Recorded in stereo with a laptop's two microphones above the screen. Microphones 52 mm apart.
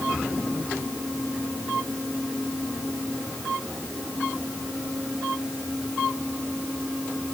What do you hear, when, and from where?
Only background noise.